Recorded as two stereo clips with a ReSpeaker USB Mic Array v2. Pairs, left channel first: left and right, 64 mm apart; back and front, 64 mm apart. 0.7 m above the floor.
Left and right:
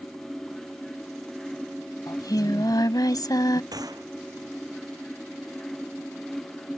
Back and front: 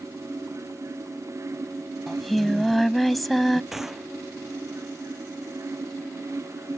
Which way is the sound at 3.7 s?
85° right.